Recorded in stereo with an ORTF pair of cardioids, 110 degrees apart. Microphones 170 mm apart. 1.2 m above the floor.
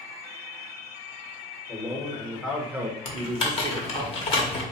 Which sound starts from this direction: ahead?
A man speaking, at 1.7 s.